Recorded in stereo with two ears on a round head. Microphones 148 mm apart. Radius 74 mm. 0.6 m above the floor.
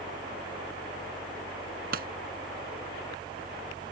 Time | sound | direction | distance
1.9 | a pop | 60° right (ahead or behind) | ?